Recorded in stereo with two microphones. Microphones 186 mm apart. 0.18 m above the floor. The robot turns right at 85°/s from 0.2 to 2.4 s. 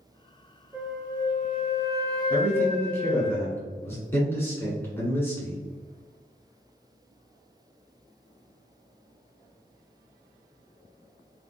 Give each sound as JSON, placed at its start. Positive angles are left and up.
{"t": 0.7, "sound": "a flute", "azimuth_deg": -15, "distance_m": 0.9}
{"t": 2.3, "sound": "a man speaking", "side_deg": 5, "distance_m": 1.6}